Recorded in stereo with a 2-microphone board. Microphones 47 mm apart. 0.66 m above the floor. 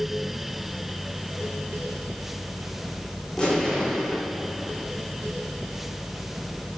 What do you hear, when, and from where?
3.4 s an explosion: 20° left (ahead or behind), 2 m